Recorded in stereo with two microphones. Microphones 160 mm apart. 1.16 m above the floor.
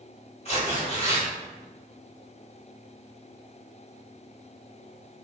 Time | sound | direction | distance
0.5 | tearing paper | 40° left (ahead or behind) | 1.1 m